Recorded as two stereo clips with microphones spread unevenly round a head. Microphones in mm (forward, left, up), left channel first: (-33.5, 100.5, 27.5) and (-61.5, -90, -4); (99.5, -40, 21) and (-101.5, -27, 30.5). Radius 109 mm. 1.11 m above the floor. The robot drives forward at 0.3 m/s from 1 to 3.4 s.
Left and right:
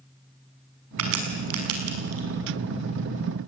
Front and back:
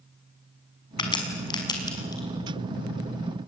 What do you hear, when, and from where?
1.0 s a crack: 70° right, 6 m; by 2.2 s 75° right, 5.5 m